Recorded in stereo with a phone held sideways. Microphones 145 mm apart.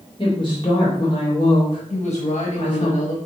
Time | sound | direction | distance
0.2 | a woman speaking | 35° left (ahead or behind) | 3 m
1.9 | a woman speaking | 55° left (ahead or behind) | 1.0 m